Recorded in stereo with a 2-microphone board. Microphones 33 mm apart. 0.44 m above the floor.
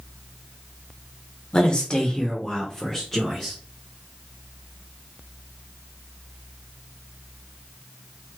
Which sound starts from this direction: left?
A man speaking, at 1.5 s.